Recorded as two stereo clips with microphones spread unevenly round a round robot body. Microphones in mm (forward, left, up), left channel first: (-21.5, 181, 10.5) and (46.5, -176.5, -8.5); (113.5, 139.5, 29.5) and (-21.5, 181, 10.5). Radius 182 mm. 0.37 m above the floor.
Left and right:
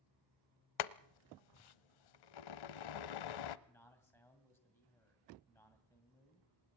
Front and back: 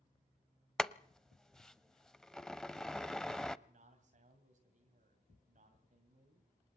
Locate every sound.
0.8 s boiling: 70° left, 0.7 m
3.7 s a man speaking: 175° right, 2 m